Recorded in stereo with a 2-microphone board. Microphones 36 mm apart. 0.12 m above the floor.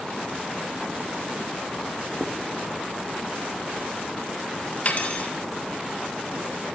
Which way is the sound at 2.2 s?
60° right (ahead or behind).